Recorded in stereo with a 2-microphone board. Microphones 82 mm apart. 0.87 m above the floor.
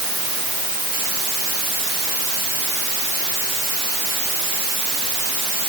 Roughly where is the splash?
I don't hear a splash.